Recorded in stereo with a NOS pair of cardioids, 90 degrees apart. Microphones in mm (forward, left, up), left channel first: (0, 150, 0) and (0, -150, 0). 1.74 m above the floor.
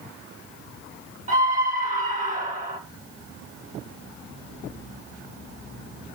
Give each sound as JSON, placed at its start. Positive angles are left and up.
{"t": 1.3, "sound": "a scream", "azimuth_deg": -25, "distance_m": 3.5}